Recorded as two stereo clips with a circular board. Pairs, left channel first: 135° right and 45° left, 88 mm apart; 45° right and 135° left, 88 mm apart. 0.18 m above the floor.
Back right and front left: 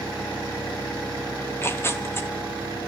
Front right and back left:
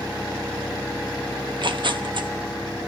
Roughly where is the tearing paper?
Behind.